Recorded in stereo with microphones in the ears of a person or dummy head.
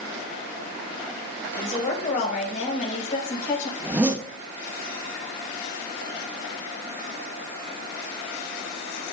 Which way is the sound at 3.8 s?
15° right (ahead or behind).